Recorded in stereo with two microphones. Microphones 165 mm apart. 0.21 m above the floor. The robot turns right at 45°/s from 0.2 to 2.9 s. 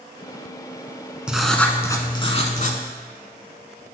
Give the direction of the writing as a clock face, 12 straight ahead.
12 o'clock.